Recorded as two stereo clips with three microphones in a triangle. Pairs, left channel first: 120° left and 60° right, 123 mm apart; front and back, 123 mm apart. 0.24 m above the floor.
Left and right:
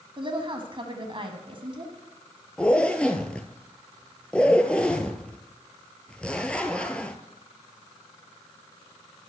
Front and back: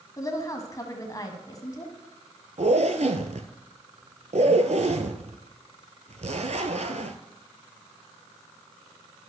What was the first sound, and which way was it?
A woman speaking, 45° right.